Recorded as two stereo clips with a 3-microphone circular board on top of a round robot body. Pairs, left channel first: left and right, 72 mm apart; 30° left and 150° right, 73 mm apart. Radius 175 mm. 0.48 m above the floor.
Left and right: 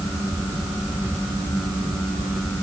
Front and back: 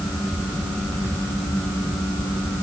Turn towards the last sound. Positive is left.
No sound to turn to.